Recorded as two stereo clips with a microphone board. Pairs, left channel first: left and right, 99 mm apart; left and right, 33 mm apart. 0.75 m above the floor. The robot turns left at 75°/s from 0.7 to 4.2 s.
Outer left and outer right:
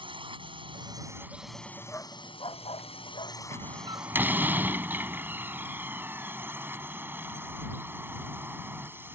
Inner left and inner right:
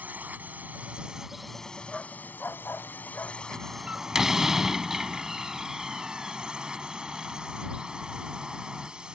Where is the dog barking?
20° left (ahead or behind); by 3.4 s 50° left (ahead or behind).